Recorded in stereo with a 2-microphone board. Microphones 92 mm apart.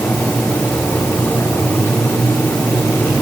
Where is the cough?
No cough in this recording.